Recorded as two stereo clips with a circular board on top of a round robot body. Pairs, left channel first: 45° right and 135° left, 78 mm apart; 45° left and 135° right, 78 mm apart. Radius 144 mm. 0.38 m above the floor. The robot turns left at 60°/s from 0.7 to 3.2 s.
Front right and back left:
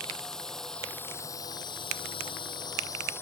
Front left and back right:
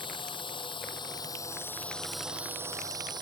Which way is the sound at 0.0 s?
35° left.